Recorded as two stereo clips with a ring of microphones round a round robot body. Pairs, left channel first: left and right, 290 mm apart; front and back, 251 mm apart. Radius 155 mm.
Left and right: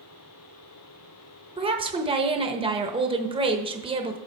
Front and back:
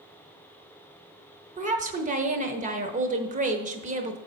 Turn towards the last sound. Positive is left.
turn(degrees=-150)